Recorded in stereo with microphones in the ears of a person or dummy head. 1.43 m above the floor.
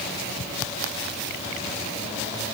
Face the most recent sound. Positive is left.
No sound to turn to.